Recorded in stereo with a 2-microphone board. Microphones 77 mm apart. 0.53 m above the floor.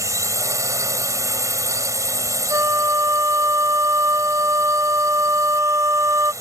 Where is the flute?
40° right (ahead or behind).